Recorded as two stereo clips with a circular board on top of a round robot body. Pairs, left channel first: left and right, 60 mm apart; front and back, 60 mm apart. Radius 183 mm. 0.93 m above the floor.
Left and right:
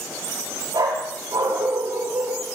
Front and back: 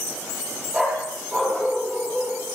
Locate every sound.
0.7 s a dog barking: 90° right, 8.5 m